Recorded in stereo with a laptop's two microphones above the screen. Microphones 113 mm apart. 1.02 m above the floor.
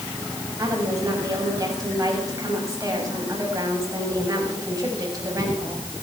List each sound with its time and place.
0.6 s a woman speaking: 30° right (ahead or behind), 6.5 m